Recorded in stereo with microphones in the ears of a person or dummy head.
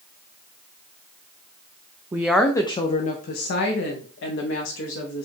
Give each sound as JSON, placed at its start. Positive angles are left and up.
{"t": 2.1, "sound": "a woman speaking", "side_deg": -10, "distance_m": 0.5}